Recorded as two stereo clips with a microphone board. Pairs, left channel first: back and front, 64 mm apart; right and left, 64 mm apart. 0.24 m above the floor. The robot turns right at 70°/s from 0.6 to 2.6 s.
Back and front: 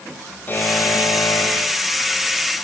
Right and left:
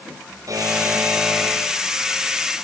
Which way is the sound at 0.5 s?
120° left.